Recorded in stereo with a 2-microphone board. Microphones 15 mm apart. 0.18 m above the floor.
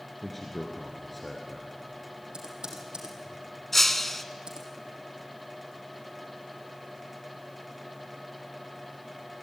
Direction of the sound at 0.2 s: 10° left (ahead or behind).